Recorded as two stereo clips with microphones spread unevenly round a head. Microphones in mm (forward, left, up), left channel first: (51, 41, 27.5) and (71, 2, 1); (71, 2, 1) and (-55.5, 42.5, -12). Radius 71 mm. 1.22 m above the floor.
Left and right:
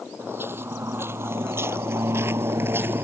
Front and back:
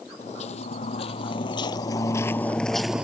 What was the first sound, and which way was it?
Footsteps, 10° right.